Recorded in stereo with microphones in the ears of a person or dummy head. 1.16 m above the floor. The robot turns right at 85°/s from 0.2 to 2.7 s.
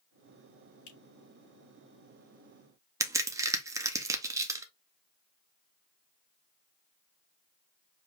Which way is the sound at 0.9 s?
80° left.